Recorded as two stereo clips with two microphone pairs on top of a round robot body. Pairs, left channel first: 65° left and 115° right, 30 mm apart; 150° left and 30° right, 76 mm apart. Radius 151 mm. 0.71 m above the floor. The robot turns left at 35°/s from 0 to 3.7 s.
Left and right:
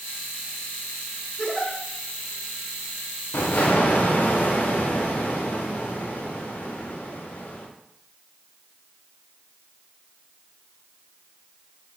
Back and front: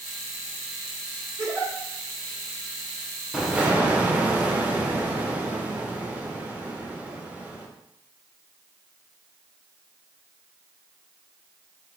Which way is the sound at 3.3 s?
50° left.